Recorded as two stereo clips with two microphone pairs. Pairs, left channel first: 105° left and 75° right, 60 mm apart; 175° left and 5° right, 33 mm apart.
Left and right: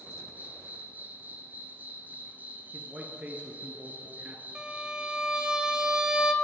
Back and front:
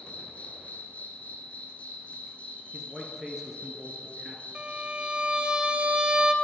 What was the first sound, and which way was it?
An insect, 135° right.